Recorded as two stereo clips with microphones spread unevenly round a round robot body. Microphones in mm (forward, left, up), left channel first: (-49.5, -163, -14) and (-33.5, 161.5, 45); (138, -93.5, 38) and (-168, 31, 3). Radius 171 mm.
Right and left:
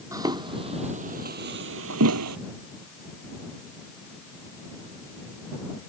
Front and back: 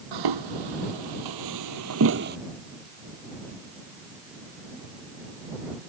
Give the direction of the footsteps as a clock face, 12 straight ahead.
7 o'clock.